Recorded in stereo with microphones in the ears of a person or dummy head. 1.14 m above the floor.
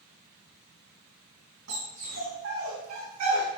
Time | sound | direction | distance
1.7 | a dog barking | 50° right (ahead or behind) | 4 m